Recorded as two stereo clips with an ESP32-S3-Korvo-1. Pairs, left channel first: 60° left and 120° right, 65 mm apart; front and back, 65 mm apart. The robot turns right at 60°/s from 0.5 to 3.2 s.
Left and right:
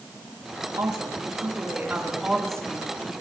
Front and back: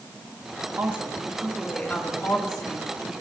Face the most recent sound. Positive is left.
turn(degrees=15)